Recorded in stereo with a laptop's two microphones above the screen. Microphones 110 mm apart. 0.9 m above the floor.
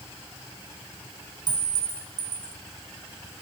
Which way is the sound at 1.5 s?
40° right (ahead or behind).